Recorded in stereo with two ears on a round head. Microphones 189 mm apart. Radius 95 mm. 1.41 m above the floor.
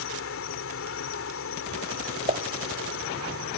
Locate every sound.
0.0 s an insect: 70° left (ahead or behind)
2.3 s a pop: 35° right (ahead or behind)